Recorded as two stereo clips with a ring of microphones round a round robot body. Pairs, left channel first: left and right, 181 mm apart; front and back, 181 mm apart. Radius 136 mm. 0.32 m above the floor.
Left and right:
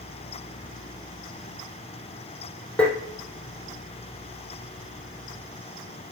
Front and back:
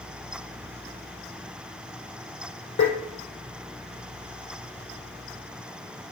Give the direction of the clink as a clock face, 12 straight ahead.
No clink in this recording.